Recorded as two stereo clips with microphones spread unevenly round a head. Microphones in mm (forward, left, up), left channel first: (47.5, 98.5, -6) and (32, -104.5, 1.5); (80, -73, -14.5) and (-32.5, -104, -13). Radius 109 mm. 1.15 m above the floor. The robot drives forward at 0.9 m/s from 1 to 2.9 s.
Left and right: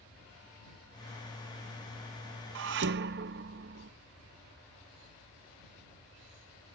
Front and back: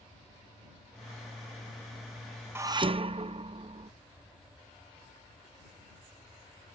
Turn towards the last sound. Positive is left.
turn(degrees=-130)